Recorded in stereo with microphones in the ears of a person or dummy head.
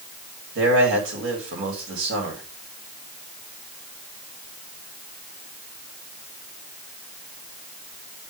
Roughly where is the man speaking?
Right.